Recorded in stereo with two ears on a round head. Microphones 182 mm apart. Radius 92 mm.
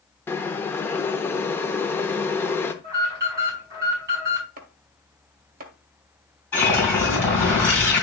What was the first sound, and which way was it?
Boiling, 10° left (ahead or behind).